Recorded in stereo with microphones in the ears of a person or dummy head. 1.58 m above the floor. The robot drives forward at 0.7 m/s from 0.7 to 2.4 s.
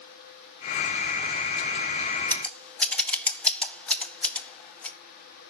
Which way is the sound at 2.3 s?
10° left (ahead or behind).